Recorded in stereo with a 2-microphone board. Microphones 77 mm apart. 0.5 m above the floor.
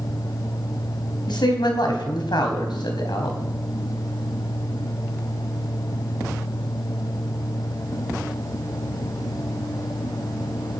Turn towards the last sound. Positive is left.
turn(degrees=75)  # may be behind; listen again after turning